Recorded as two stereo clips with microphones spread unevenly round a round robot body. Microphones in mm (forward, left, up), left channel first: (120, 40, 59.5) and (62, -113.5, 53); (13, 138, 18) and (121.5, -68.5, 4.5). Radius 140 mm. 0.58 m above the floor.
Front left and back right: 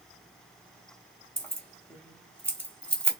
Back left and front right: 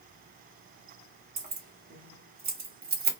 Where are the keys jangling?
15° right, 1.3 m.